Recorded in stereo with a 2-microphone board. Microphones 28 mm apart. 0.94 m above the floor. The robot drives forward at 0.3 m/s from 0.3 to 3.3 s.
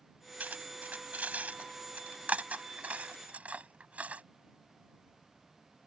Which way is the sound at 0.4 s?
75° right (ahead or behind).